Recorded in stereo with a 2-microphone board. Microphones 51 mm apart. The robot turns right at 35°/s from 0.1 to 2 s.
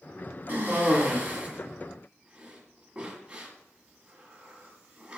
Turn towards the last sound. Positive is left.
turn(degrees=-25)  # may be behind; listen again after turning